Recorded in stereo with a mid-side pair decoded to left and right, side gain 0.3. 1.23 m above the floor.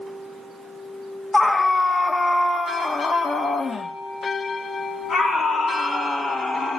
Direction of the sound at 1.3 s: 25° left.